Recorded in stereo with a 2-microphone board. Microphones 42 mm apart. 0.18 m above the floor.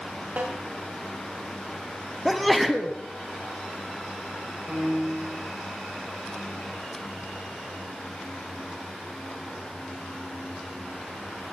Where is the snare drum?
45° right (ahead or behind), 6 m.